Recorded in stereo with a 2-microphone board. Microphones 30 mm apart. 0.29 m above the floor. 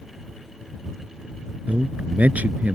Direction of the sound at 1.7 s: 65° right (ahead or behind).